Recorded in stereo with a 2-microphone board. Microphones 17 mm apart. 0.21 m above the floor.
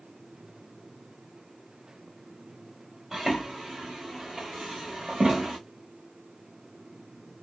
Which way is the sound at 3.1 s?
35° right (ahead or behind).